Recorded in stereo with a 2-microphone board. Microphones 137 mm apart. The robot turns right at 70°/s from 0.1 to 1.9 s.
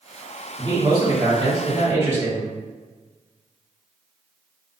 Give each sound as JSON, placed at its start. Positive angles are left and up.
{"t": 0.6, "sound": "a man speaking", "azimuth_deg": -120, "distance_m": 1.3}